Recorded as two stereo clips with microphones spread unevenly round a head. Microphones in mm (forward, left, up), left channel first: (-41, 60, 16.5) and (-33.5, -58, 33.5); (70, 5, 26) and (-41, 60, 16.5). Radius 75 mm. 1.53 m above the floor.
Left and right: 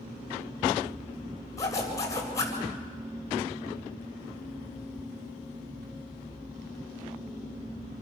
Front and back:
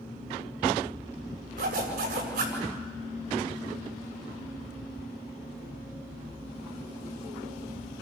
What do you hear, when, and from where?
1.6 s a zipper: 160° left, 7.5 m